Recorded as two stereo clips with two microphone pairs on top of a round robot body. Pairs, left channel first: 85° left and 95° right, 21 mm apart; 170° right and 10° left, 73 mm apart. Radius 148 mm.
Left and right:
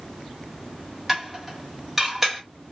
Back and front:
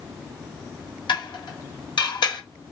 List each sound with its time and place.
1.1 s dishes clattering: straight behind, 1.4 m